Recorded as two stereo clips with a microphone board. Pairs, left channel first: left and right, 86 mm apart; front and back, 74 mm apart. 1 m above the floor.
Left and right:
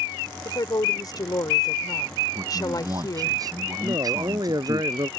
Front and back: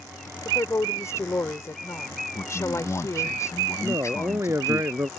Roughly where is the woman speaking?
Ahead left.